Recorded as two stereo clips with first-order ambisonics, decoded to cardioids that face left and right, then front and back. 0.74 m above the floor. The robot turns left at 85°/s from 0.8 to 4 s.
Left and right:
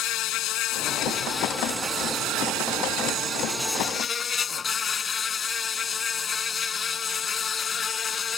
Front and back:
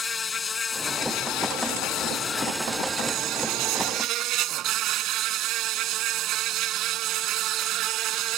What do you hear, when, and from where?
0.0 s an insect: 65° left; by 8.4 s 155° left